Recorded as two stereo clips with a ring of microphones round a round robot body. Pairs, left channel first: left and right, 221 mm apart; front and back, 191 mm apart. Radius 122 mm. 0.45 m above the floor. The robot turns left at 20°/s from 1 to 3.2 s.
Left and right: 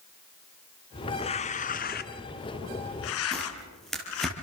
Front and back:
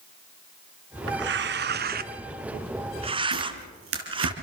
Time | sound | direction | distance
1.1 | tearing paper | 160° left | 1.2 m
3.3 | tearing paper | straight behind | 5.5 m